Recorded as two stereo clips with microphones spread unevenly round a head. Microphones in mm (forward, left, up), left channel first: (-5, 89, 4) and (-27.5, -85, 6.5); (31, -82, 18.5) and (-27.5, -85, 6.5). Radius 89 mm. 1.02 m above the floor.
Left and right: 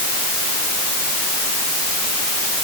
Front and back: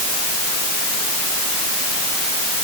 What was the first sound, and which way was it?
Only background noise.